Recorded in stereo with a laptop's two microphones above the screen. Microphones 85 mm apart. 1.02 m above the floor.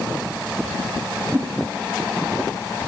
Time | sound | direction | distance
1.3 | a whoosh | 20° right (ahead or behind) | 0.9 m